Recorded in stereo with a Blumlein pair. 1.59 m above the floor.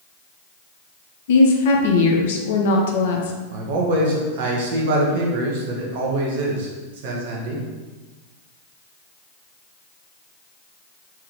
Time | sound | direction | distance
1.3 | a woman speaking | 55° left | 0.8 m
3.5 | a man speaking | 50° right | 1.0 m